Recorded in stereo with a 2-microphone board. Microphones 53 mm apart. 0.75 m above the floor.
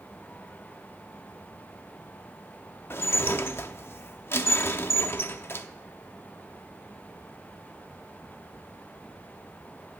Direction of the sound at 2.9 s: 45° left (ahead or behind).